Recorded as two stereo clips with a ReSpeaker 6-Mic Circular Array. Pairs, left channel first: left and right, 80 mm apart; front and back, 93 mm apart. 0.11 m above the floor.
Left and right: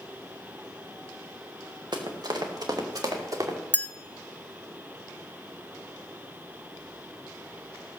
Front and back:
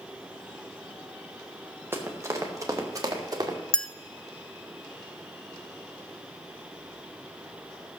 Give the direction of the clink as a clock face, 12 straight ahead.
10 o'clock.